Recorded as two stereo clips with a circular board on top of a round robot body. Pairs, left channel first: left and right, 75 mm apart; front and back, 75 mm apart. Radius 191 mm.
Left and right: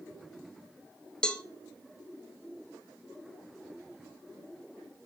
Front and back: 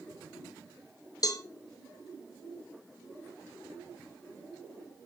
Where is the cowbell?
15° left, 0.9 m.